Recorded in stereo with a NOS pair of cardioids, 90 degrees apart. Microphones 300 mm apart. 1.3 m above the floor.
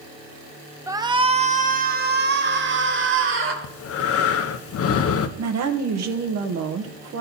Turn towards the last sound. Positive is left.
turn(degrees=-65)